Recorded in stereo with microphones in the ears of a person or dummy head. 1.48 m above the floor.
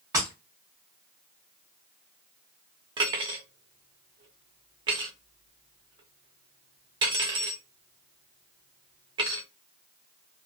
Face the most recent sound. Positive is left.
turn(degrees=-30)  # may be behind; listen again after turning